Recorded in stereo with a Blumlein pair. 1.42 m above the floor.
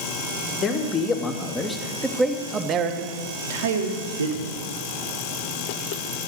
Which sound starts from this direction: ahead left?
A man speaking, at 0.6 s.